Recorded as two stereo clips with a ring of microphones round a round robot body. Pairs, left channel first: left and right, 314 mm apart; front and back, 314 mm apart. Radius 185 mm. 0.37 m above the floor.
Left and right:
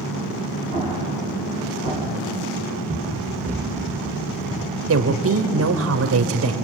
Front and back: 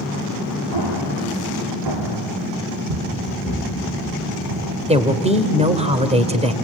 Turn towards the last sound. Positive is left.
turn(degrees=-115)